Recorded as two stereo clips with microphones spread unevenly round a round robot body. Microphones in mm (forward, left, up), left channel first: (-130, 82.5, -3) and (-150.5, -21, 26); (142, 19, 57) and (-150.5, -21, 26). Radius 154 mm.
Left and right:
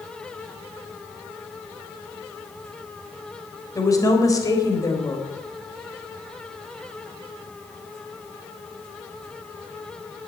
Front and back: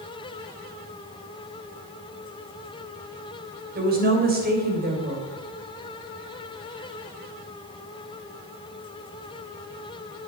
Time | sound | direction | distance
3.8 | a woman speaking | 130° left | 3.5 m